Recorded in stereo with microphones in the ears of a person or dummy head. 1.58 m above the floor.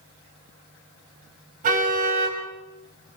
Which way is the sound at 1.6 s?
45° right (ahead or behind).